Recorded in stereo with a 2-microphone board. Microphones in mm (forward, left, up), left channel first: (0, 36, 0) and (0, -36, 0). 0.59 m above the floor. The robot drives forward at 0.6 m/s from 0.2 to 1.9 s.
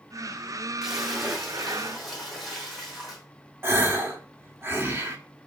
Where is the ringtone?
No ringtone in this recording.